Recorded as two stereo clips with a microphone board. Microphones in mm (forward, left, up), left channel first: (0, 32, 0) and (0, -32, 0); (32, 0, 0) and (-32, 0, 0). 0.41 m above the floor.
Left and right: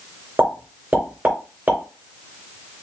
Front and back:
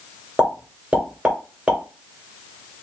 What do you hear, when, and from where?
0.4 s a pop: 115° right, 1.6 m